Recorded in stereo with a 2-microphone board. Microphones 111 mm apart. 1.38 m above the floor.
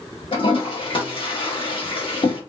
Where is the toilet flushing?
50° left (ahead or behind), 1.2 m.